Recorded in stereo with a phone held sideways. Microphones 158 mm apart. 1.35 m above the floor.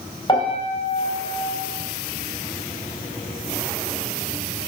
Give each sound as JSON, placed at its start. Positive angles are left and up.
{"t": 0.3, "sound": "a piano", "side_deg": 30, "distance_m": 4.0}